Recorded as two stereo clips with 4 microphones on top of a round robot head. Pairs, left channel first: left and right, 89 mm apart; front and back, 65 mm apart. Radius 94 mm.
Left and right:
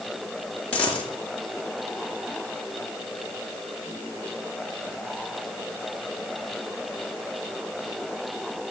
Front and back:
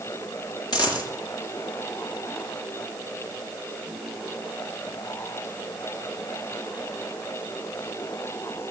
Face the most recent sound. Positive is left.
turn(degrees=10)